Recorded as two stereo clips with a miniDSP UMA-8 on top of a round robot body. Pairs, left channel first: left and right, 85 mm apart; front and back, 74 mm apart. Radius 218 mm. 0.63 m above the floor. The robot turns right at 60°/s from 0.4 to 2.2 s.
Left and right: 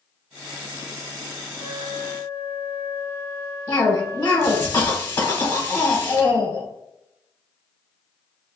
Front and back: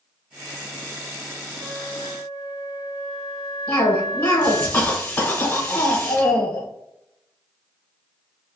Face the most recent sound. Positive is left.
turn(degrees=45)